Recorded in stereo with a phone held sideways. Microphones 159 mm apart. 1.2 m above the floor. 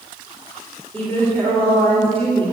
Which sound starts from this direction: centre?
A woman speaking, at 0.9 s.